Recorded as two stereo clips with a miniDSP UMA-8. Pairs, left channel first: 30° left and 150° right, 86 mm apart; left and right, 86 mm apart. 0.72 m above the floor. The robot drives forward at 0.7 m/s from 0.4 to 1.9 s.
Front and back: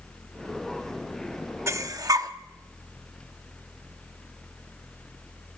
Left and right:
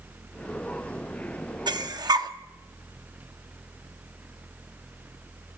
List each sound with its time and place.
1.7 s breathing: 100° right, 0.8 m; by 2.3 s 115° right, 0.8 m